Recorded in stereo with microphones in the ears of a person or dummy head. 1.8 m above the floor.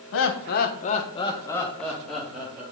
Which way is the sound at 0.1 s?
65° left (ahead or behind).